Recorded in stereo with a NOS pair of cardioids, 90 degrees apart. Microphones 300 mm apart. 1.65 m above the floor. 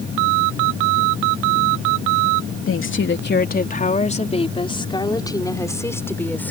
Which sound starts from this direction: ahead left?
A woman speaking, at 2.7 s.